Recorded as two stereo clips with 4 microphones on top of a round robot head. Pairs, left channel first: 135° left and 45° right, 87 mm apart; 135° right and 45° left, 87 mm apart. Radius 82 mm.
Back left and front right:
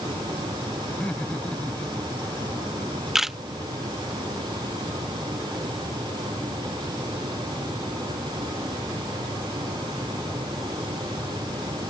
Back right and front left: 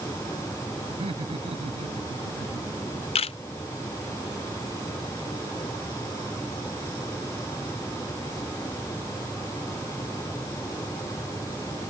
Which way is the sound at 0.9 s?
60° left.